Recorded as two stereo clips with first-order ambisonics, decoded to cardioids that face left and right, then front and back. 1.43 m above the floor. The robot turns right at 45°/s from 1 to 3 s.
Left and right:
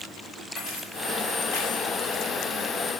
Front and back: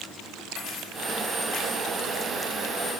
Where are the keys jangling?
40° left, 7.5 m; by 1.9 s 80° left, 7.5 m.